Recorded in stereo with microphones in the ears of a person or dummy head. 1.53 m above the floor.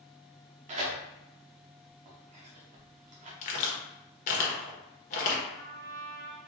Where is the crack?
40° left (ahead or behind), 1.1 m.